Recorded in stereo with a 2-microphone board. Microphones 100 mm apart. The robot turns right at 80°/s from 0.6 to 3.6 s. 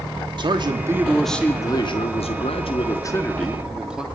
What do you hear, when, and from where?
0.4 s a man speaking: 50° right, 3 m; by 4.0 s 170° right, 3 m